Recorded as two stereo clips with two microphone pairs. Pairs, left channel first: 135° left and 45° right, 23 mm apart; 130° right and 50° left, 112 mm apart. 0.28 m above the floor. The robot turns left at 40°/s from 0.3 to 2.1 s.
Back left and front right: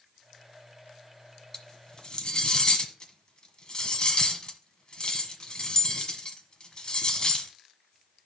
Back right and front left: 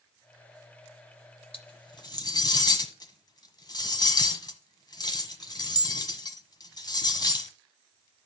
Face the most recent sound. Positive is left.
turn(degrees=180)